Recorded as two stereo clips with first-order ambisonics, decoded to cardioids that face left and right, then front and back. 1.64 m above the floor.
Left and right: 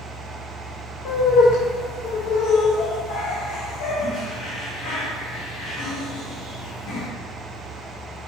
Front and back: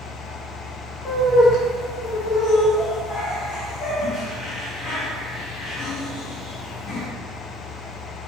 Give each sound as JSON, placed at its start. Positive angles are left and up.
{"t": 1.1, "sound": "laughter", "azimuth_deg": 60, "distance_m": 0.8}